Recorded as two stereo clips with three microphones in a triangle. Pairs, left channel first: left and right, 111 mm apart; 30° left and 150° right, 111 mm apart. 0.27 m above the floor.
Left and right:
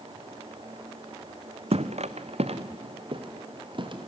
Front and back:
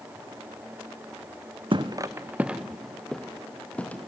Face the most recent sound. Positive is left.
turn(degrees=-45)